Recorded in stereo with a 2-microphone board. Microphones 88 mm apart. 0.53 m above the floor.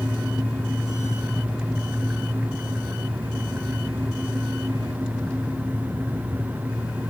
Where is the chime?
I don't hear a chime.